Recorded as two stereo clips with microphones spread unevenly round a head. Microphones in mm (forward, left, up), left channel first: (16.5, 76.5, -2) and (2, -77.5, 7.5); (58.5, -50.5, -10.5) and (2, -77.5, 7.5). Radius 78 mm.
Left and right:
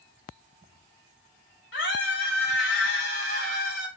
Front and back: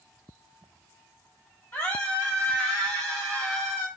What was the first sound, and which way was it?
A scream, 105° left.